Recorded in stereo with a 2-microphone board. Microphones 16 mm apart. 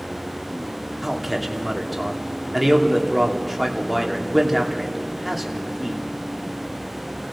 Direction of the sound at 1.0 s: 10° right (ahead or behind).